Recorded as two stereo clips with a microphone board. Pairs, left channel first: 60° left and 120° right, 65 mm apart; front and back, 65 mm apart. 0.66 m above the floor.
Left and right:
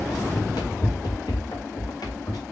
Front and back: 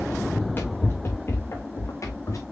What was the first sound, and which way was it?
Running footsteps, 65° left.